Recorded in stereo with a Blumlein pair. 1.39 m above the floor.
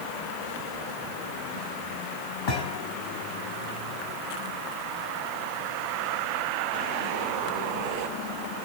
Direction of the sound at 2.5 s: 45° left.